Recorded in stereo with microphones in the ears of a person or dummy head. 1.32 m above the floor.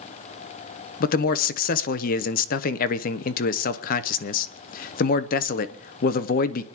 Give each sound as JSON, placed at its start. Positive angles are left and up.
{"t": 1.0, "sound": "a man speaking", "side_deg": 50, "distance_m": 0.8}